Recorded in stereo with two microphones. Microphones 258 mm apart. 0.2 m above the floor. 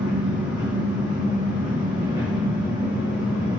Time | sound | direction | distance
0.0 | an engine running | 15° right (ahead or behind) | 6.5 m